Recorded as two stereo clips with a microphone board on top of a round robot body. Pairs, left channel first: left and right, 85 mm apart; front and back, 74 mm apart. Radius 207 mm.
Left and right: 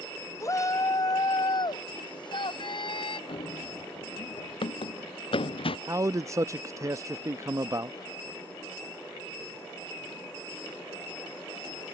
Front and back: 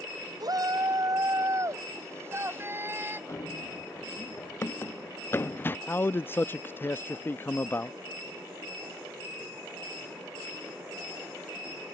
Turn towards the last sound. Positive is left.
turn(degrees=-50)